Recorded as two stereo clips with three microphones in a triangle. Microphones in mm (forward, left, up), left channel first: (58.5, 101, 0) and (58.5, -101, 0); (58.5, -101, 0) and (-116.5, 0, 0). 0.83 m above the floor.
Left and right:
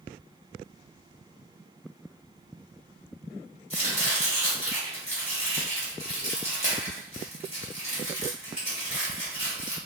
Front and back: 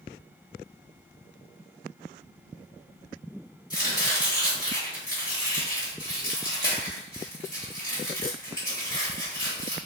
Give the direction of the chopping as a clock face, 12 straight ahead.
11 o'clock.